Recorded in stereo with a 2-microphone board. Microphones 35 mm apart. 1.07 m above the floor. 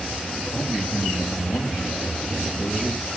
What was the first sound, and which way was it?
A man speaking, 35° left (ahead or behind).